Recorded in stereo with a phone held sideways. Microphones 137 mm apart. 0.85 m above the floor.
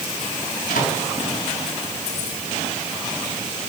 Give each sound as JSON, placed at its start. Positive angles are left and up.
{"t": 0.7, "sound": "a microwave", "side_deg": 85, "distance_m": 6.0}